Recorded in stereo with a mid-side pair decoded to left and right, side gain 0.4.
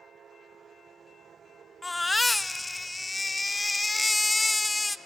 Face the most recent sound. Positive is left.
turn(degrees=25)